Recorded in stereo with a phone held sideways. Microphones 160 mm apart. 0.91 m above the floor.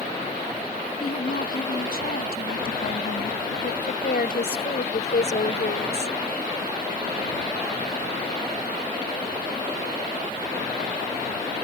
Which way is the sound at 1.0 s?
75° left (ahead or behind).